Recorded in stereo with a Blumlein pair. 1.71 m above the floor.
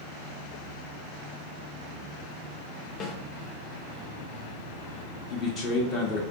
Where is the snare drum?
25° left, 0.9 m.